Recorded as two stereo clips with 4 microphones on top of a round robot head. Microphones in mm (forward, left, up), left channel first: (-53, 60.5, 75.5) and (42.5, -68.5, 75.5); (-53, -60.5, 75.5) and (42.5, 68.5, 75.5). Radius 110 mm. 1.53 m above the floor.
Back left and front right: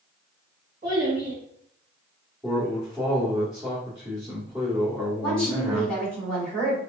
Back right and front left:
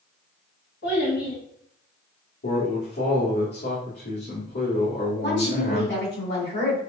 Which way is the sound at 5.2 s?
150° right.